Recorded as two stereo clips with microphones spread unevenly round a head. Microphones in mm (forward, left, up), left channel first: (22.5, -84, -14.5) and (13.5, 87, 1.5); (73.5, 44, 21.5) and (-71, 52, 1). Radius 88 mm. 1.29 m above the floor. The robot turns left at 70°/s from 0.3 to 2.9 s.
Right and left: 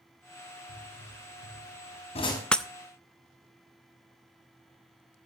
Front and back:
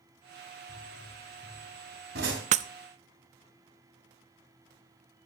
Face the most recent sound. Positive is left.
turn(degrees=155)